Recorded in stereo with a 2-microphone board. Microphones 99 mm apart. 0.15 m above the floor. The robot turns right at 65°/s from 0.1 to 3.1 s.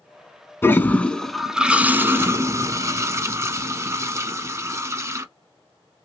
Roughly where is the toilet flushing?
Behind left.